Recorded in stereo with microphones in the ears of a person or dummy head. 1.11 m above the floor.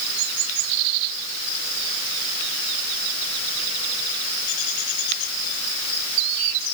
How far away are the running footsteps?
No running footsteps in this recording.